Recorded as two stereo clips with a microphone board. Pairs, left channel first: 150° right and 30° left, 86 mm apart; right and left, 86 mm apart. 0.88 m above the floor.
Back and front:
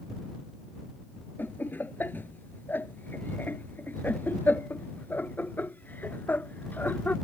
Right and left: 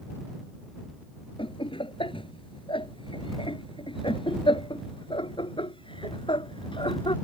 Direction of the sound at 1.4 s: 80° right.